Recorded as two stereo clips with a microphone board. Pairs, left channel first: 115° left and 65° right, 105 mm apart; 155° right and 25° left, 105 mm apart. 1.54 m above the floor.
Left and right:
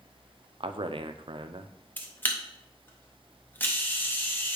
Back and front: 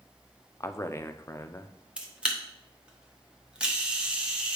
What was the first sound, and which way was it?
A man speaking, 95° right.